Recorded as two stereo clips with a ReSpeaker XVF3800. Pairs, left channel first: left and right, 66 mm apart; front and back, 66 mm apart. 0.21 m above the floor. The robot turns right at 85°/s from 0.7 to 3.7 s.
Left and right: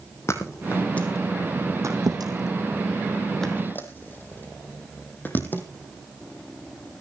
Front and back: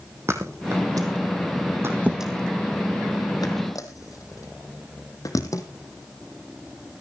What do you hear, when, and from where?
0.3 s a thud: 135° left, 2 m; by 5.6 s 30° left, 2 m